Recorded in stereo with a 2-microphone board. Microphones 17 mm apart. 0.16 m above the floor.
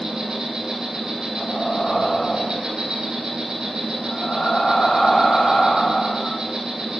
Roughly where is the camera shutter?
I don't hear a camera shutter.